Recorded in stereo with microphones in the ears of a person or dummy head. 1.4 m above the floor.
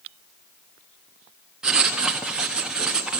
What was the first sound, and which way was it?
Writing, 5° right (ahead or behind).